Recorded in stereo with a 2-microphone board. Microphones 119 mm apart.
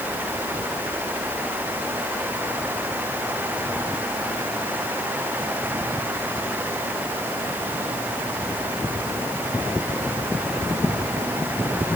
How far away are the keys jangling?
No keys jangling in this recording.